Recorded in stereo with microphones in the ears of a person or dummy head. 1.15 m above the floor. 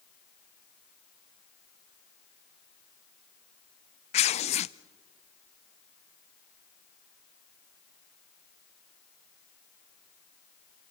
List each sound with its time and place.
4.1 s tearing paper: 30° left (ahead or behind), 0.5 m